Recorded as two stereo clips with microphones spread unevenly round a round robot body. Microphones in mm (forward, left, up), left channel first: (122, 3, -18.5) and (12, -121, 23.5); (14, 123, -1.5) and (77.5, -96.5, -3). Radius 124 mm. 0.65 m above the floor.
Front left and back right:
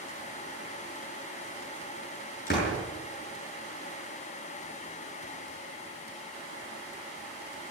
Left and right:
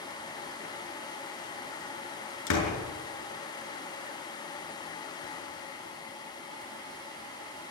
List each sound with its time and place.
2.5 s a door slam: 105° left, 6.5 m